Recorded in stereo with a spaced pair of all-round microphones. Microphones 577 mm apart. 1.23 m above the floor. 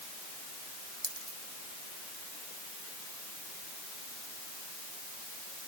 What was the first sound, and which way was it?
A dropped coin, 65° right (ahead or behind).